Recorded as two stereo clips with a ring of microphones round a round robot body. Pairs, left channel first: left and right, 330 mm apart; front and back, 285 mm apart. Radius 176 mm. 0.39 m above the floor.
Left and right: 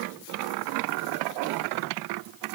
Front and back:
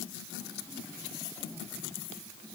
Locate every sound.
Only background noise.